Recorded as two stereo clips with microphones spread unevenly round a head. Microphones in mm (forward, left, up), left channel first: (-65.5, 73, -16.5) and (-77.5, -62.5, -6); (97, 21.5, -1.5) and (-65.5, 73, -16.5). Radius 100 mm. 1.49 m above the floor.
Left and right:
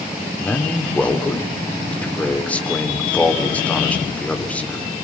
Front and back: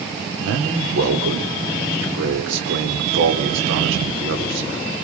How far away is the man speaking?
About 4 m.